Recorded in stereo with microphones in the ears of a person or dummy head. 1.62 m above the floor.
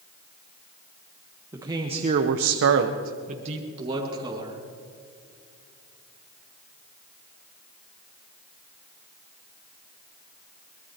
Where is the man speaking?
10° right (ahead or behind), 1.3 m; by 4.6 s 30° right (ahead or behind), 2.5 m.